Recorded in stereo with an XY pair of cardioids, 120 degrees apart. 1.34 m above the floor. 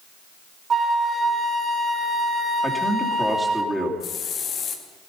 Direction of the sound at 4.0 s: 55° left.